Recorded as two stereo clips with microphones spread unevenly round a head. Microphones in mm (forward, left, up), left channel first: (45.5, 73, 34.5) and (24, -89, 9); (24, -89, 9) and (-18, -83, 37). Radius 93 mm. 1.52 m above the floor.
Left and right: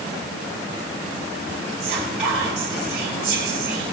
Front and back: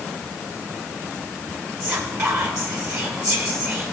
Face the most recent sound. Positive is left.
turn(degrees=180)